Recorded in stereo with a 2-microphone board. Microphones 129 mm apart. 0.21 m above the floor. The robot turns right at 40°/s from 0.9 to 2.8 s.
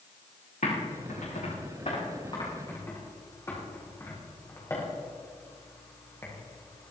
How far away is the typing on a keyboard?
About 6 m.